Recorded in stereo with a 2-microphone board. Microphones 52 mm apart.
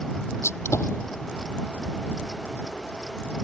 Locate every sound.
0.4 s a gunshot: 65° left (ahead or behind)